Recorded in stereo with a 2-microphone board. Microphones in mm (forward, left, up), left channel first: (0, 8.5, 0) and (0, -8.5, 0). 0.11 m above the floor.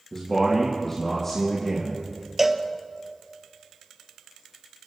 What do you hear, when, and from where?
0.1 s a man speaking: 20° left (ahead or behind), 3.5 m
2.4 s a cowbell: 15° right (ahead or behind), 0.8 m